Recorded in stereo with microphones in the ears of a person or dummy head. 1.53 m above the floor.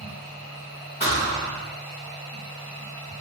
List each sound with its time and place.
0.0 s a machine running: centre (ahead or behind), 1.7 m
1.0 s a thud: 20° left (ahead or behind), 0.9 m